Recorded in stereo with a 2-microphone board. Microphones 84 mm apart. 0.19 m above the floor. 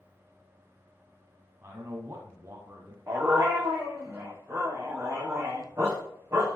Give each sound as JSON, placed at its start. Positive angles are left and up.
{"t": 1.6, "sound": "a man speaking", "side_deg": -30, "distance_m": 1.3}
{"t": 3.1, "sound": "a dog barking", "side_deg": -30, "distance_m": 4.0}